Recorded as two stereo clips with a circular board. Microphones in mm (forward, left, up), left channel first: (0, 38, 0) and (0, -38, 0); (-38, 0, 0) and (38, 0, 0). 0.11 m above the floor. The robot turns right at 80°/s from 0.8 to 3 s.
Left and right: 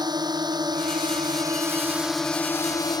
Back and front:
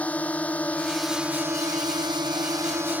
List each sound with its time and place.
0.0 s a drone: 110° right; by 3.0 s 65° left